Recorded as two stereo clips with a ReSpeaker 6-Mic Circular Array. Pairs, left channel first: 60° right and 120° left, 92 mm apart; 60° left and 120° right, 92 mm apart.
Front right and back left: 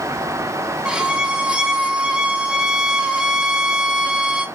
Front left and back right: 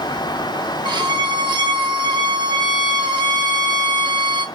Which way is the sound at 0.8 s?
160° right.